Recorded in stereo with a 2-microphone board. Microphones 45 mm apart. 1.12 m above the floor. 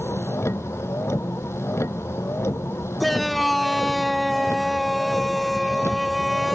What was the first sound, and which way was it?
A vehicle, 90° left.